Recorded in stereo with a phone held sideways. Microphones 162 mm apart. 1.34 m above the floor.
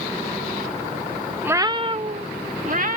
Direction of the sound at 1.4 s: 10° right (ahead or behind).